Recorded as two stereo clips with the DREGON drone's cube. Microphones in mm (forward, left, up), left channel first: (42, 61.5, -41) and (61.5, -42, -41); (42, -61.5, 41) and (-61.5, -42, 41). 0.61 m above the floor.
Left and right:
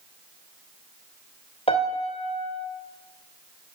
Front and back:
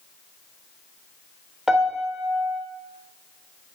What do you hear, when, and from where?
1.7 s a piano: 85° left, 2 m